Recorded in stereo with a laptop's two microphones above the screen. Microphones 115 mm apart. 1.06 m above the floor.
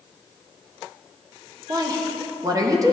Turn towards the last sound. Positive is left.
turn(degrees=-30)  # may be behind; listen again after turning